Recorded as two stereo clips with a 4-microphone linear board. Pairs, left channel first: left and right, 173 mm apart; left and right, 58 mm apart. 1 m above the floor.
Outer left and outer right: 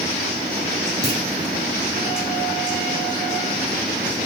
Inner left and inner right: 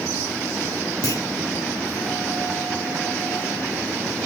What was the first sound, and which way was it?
A clunk, 70° left (ahead or behind).